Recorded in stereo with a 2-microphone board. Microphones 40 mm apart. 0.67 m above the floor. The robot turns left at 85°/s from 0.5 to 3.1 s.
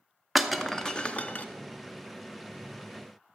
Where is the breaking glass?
5° right (ahead or behind), 0.7 m; by 1.4 s 40° left (ahead or behind), 0.7 m.